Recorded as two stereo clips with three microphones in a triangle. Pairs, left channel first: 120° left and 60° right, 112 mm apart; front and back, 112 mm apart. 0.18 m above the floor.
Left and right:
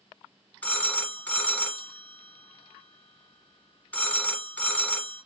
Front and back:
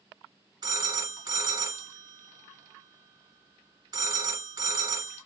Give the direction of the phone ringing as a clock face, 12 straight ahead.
6 o'clock.